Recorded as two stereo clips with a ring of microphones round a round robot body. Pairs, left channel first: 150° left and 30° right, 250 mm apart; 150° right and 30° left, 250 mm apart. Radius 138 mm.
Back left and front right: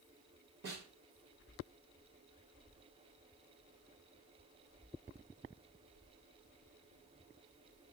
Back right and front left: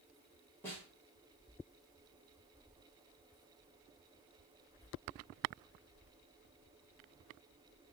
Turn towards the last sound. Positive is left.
turn(degrees=-70)